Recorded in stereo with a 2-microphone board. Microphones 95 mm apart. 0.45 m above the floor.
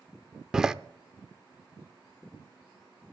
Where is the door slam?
5° right (ahead or behind), 0.6 m.